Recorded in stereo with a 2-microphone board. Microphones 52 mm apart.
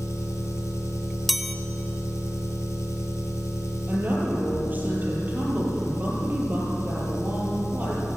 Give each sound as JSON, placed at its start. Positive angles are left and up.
{"t": 0.0, "sound": "an engine running", "side_deg": 70, "distance_m": 4.0}
{"t": 1.3, "sound": "a chime", "side_deg": 0, "distance_m": 0.9}
{"t": 3.9, "sound": "a woman speaking", "side_deg": -35, "distance_m": 7.5}